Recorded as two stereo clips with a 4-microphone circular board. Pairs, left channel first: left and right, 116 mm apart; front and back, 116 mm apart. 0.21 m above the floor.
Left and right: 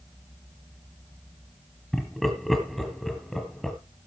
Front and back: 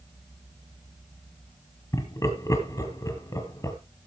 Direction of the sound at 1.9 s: 5° left.